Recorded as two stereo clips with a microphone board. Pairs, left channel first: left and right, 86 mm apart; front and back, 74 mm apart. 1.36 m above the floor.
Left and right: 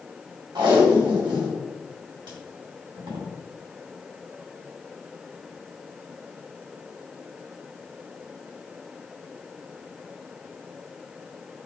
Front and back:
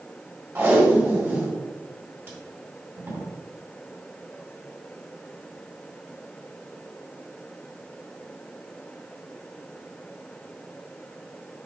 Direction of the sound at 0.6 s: 120° right.